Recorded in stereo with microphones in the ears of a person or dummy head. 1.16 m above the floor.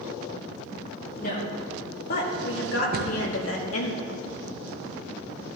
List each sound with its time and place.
1.2 s a woman speaking: 50° left (ahead or behind), 2.5 m; by 3.9 s 80° left, 2.5 m
2.9 s a cupboard door: 45° right (ahead or behind), 1.1 m